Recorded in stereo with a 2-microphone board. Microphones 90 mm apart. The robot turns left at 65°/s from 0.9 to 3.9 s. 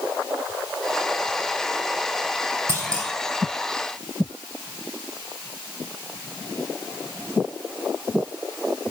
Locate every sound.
2.7 s a clunk: 30° right (ahead or behind), 3.5 m; by 3.1 s 60° right (ahead or behind), 3.5 m